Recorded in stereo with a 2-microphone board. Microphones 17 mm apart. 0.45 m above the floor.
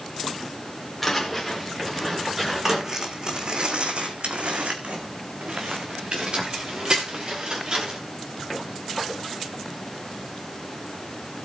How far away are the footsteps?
About 3 m.